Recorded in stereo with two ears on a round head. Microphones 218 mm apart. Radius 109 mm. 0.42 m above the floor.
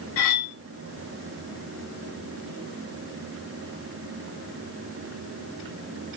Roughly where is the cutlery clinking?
Left.